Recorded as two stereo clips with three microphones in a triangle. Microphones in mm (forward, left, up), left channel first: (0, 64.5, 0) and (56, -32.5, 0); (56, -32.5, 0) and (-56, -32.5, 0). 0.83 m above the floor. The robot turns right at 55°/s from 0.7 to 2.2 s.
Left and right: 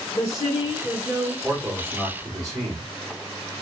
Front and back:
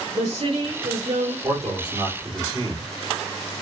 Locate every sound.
0.1 s a woman speaking: 170° left, 2 m; by 1.3 s 155° right, 2 m
1.4 s a man speaking: 155° right, 3 m; by 2.8 s 115° right, 3 m